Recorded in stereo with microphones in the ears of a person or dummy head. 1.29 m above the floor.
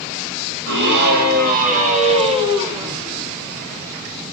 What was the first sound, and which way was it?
A scream, 65° right (ahead or behind).